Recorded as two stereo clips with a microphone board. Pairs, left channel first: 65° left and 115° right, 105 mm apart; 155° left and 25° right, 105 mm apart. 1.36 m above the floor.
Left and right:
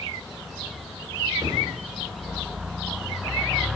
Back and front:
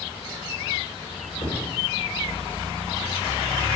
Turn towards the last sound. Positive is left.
turn(degrees=-155)